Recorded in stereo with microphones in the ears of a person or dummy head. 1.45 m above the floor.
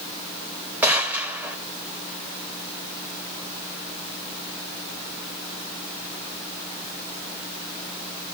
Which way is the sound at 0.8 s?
10° right (ahead or behind).